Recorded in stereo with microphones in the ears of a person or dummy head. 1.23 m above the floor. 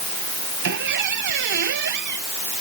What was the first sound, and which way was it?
A squeak, 60° right (ahead or behind).